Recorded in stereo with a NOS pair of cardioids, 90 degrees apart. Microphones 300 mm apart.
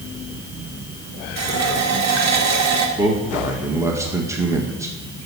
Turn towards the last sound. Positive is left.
turn(degrees=-10)